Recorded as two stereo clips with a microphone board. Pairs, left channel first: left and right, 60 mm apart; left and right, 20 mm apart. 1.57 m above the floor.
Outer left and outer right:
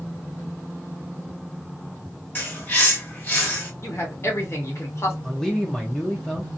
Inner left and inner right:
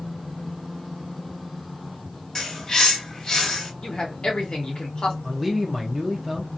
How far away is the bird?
About 1.6 m.